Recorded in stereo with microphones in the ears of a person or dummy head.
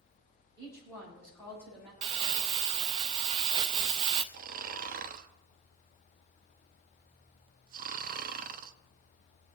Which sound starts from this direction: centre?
A woman speaking, at 0.6 s.